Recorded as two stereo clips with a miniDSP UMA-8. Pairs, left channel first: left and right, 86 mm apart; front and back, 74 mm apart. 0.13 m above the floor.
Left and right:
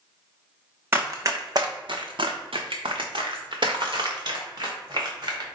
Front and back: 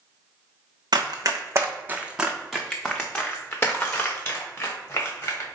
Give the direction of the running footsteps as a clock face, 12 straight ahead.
5 o'clock.